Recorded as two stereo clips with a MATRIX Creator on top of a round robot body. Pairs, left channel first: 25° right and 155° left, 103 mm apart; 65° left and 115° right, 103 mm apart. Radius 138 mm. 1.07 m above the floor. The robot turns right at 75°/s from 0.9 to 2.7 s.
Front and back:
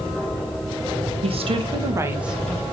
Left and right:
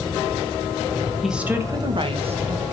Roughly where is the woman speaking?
Behind.